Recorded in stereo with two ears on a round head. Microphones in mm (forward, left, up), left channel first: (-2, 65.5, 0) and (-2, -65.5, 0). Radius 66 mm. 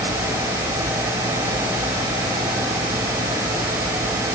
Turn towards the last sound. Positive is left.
No sound to turn to.